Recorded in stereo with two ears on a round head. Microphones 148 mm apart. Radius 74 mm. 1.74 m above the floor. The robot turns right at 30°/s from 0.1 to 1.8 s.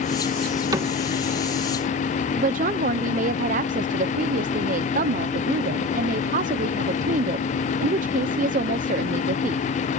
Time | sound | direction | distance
0.7 | a cupboard door | 25° right (ahead or behind) | ?
2.4 | a woman speaking | 50° right (ahead or behind) | ?